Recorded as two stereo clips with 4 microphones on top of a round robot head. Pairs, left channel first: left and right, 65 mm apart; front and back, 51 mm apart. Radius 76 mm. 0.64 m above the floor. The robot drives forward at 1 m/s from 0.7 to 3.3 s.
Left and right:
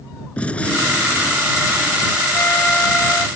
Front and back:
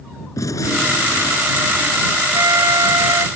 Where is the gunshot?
20° left; by 2.2 s 40° left.